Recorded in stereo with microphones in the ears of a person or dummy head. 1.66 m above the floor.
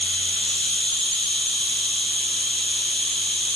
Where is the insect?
5° left (ahead or behind), 4 m.